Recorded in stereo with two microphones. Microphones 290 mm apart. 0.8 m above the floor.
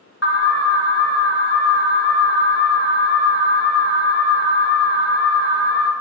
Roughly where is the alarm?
Left.